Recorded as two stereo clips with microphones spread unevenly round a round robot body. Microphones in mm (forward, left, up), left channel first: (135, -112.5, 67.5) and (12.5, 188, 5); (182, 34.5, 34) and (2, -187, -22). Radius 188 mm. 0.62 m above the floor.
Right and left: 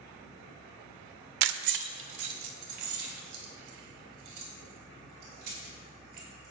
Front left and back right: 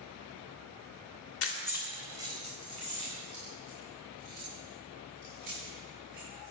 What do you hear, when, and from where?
1.4 s keys jangling: 115° left, 0.6 m; by 6.5 s 165° left, 7.5 m